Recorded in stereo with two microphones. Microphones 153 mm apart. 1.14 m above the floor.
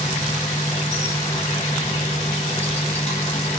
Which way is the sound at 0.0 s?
45° left (ahead or behind).